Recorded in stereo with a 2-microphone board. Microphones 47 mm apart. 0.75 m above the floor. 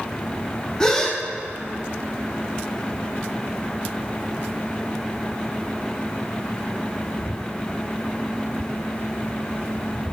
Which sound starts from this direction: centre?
A gasp, at 0.8 s.